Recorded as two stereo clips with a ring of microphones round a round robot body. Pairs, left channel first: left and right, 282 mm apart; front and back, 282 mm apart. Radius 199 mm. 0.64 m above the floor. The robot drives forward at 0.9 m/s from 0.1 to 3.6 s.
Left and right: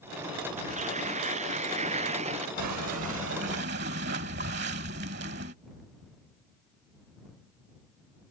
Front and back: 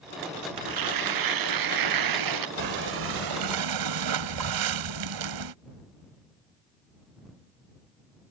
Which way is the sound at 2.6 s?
140° right.